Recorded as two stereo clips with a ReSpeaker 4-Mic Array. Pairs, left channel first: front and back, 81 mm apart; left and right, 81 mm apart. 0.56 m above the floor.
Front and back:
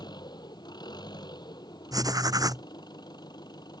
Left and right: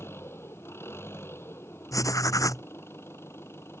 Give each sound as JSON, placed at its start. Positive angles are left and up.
{"t": 0.0, "sound": "an engine running", "azimuth_deg": 30}
{"t": 1.9, "sound": "writing", "azimuth_deg": 140}